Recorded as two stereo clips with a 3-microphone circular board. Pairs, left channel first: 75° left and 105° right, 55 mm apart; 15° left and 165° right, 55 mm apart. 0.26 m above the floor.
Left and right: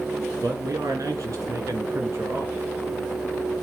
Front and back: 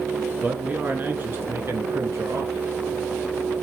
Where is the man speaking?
95° right, 3.5 m; by 2.6 s 155° right, 3.5 m.